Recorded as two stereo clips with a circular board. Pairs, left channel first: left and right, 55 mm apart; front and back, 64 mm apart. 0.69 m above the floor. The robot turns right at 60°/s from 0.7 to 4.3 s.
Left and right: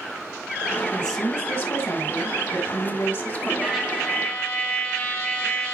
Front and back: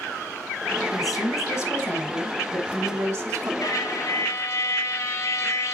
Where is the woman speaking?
10° left, 4 m; by 3.5 s 165° left, 4 m.